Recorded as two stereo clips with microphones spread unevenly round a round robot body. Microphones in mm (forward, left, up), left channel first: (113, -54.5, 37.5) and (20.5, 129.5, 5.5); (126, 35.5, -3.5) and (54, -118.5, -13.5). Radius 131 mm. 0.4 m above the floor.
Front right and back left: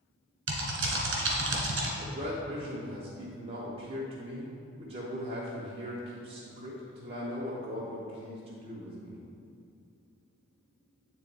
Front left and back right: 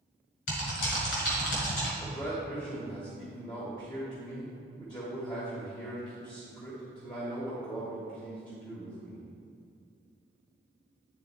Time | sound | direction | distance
0.5 | typing on a keyboard | 95° left | 1.6 m
2.0 | a man speaking | 120° left | 0.9 m